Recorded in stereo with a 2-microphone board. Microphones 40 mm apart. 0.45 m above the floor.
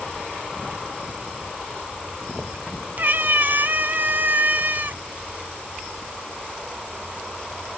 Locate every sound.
3.0 s a cat meowing: 50° right (ahead or behind), 0.5 m